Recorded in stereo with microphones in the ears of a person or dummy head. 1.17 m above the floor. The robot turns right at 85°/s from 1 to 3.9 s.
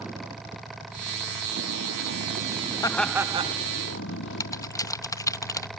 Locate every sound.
0.0 s a vehicle: 175° right; by 5.8 s 75° left
2.8 s laughter: 160° left; by 3.6 s 140° right
4.4 s typing on a keyboard: 20° left (ahead or behind)